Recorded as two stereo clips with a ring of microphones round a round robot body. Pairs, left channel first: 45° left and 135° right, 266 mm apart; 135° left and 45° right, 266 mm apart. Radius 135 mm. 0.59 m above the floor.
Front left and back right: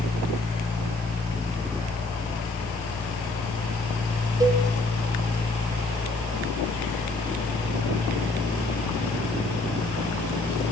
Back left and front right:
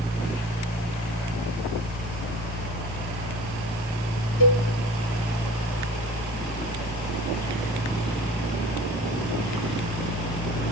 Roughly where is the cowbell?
Behind left.